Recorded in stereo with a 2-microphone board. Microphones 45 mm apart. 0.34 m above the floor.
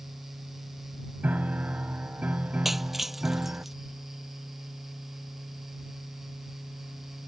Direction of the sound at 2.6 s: 5° right (ahead or behind).